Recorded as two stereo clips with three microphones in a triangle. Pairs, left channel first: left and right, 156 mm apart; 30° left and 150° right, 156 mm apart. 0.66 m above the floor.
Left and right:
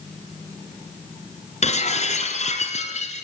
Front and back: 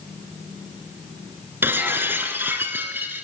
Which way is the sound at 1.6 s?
135° left.